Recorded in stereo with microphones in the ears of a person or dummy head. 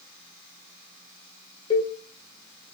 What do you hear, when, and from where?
1.7 s a cowbell: 30° left (ahead or behind), 1.5 m